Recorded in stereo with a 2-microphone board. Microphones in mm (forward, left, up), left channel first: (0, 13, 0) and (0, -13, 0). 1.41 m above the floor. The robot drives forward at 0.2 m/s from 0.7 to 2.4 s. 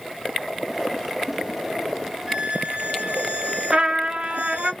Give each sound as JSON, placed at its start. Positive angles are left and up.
{"t": 2.3, "sound": "a violin", "side_deg": -50, "distance_m": 1.9}
{"t": 3.7, "sound": "a trumpet", "side_deg": -40, "distance_m": 1.7}